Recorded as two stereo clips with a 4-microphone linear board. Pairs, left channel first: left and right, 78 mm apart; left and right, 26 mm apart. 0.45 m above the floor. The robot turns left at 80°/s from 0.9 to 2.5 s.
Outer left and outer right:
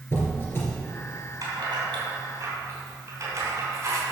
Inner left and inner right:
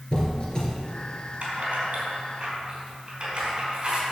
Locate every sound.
0.1 s a squeak: 30° left (ahead or behind), 2.5 m
1.4 s keys jangling: 45° right (ahead or behind), 3.5 m